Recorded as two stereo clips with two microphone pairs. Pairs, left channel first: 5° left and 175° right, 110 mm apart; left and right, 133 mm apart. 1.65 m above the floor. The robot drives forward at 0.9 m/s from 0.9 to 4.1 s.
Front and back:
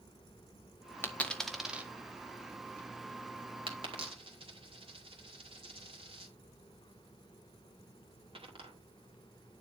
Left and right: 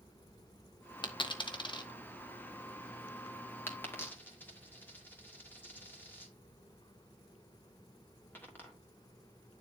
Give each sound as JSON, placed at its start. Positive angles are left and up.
{"t": 1.0, "sound": "a dropped coin", "azimuth_deg": 65, "distance_m": 1.3}